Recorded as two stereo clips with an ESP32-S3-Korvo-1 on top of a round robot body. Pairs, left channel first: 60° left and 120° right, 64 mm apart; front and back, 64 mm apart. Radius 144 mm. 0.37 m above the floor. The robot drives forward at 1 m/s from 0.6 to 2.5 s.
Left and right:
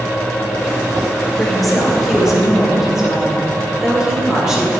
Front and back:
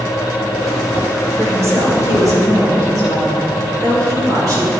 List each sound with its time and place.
1.4 s a woman speaking: 145° left, 1.9 m; by 4.7 s 160° left, 2.5 m